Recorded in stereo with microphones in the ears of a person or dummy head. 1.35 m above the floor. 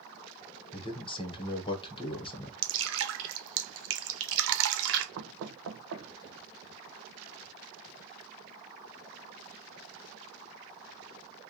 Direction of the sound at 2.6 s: 70° right (ahead or behind).